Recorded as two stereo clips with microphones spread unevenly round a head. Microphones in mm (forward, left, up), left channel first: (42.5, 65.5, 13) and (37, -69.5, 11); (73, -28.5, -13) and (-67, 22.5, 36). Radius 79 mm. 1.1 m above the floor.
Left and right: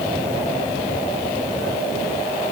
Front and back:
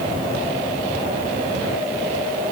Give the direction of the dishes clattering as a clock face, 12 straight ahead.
I don't hear dishes clattering.